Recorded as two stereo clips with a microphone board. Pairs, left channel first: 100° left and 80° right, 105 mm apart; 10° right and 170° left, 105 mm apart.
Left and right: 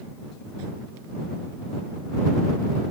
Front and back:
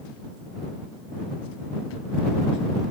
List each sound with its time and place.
Only background noise.